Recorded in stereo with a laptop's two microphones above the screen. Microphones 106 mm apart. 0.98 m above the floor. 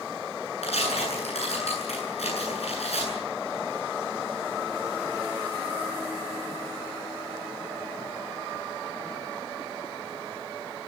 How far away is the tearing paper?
About 9.5 m.